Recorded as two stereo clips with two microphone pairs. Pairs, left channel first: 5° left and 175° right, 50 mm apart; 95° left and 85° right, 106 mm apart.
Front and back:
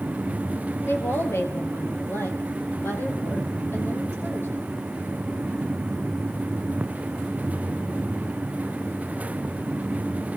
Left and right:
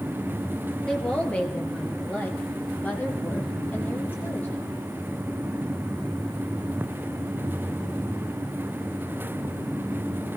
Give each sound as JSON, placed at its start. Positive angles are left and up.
{"t": 0.9, "sound": "a woman speaking", "azimuth_deg": 15, "distance_m": 2.5}